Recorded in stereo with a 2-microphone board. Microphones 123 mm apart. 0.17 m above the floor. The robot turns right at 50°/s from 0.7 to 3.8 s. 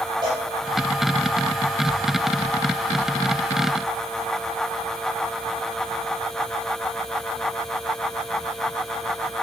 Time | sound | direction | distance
0.2 | a cowbell | 35° right (ahead or behind) | 5 m